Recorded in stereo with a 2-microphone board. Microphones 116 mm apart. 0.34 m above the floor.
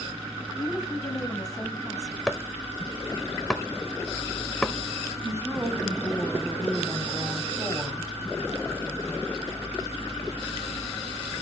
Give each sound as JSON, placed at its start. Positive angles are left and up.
{"t": 0.6, "sound": "a woman speaking", "side_deg": 30, "distance_m": 2.0}
{"t": 2.3, "sound": "chopping", "side_deg": 5, "distance_m": 0.8}
{"t": 5.2, "sound": "a woman speaking", "side_deg": -25, "distance_m": 1.9}